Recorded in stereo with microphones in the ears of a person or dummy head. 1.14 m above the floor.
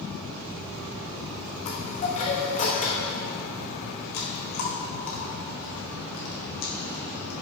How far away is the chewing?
About 1.5 m.